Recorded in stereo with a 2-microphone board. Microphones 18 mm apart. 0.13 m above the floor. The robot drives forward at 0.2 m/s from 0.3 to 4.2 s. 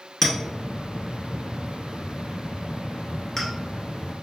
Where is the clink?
20° left (ahead or behind), 0.9 m; by 3.5 s 15° left (ahead or behind), 1.2 m.